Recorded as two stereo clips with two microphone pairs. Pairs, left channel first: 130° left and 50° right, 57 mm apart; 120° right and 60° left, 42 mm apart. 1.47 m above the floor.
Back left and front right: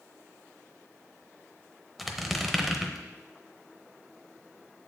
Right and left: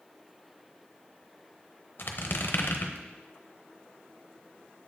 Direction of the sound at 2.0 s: 140° right.